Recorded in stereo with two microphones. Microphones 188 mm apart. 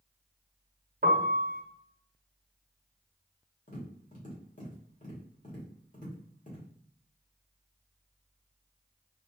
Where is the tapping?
50° left (ahead or behind), 1.6 m.